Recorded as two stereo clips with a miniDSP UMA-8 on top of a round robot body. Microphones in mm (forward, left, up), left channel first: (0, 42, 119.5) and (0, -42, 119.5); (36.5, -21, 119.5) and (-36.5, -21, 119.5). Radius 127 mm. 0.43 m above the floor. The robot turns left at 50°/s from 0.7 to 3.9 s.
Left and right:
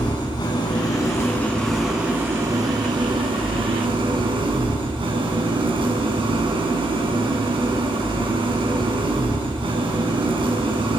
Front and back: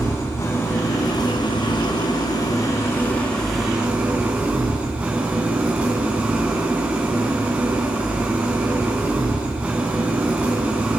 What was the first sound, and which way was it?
An engine running, 55° left.